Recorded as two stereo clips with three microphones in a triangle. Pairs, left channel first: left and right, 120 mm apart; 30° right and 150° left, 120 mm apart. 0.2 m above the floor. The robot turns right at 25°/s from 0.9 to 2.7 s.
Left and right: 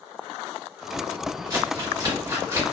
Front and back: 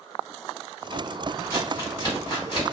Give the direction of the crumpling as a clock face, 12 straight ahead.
2 o'clock.